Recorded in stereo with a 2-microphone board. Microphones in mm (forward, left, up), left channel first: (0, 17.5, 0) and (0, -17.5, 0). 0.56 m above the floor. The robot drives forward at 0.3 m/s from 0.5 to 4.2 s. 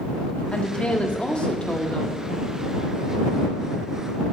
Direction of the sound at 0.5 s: 30° left (ahead or behind).